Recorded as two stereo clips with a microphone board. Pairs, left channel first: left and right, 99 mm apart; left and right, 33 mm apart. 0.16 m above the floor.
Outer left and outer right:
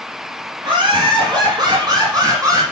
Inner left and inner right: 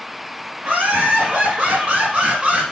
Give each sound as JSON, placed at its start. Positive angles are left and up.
{"t": 0.6, "sound": "laughter", "side_deg": -50, "distance_m": 2.5}